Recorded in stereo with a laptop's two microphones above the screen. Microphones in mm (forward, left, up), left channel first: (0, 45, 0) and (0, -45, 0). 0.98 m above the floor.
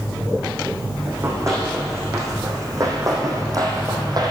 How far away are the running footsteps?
About 4 m.